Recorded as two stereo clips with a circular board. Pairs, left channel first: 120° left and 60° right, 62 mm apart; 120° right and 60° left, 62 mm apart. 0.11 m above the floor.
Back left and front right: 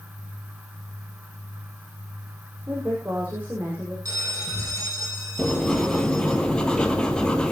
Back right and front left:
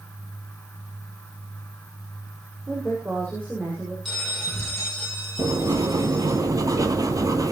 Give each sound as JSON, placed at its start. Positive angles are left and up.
{"t": 2.7, "sound": "a woman speaking", "azimuth_deg": 0, "distance_m": 7.0}
{"t": 4.0, "sound": "a bell", "azimuth_deg": -30, "distance_m": 5.0}
{"t": 5.4, "sound": "writing", "azimuth_deg": 45, "distance_m": 1.3}